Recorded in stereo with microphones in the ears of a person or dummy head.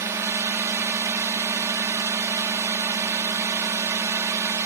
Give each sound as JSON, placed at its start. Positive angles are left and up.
{"t": 0.0, "sound": "a drone", "side_deg": -15}